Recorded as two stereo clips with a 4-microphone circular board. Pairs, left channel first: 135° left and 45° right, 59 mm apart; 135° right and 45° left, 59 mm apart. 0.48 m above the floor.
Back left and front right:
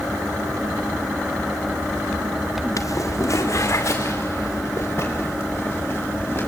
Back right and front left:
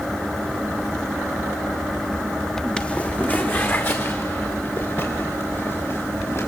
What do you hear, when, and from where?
2.8 s footsteps: 150° left, 1.2 m; by 6.5 s 175° right, 6 m